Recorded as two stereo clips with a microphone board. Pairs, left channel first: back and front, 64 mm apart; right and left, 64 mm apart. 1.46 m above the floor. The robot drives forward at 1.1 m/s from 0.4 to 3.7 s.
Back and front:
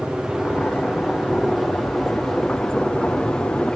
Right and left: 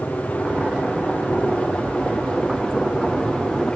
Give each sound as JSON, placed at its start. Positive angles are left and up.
{"t": 0.0, "sound": "a helicopter", "azimuth_deg": -65}